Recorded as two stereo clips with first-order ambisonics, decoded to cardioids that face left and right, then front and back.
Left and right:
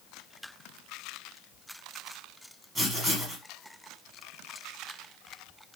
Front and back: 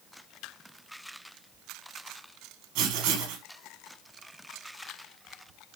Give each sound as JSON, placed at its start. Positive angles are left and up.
{"t": 2.8, "sound": "writing", "azimuth_deg": -165, "distance_m": 3.5}